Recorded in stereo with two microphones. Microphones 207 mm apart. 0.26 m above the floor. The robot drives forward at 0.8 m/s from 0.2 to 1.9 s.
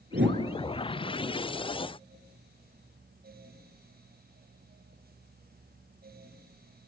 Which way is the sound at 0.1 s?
70° right (ahead or behind).